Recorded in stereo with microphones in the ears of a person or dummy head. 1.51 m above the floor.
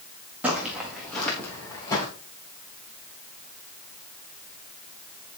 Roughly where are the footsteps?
Centre.